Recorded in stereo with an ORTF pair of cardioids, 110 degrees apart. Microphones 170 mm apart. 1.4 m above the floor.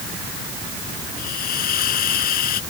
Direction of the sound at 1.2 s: 60° left.